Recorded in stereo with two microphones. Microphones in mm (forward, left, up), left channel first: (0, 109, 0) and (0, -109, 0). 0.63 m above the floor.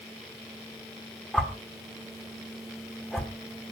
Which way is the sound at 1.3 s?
Centre (ahead or behind).